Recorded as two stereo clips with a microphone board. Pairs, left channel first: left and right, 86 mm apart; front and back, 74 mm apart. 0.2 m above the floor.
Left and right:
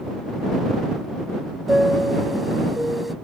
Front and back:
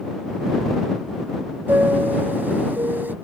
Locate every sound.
1.7 s a chime: 175° right